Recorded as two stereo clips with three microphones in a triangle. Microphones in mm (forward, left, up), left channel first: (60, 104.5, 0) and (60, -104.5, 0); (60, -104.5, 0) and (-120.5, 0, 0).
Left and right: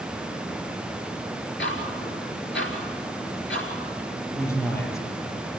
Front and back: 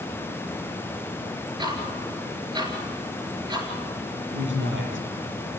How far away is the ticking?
About 4 m.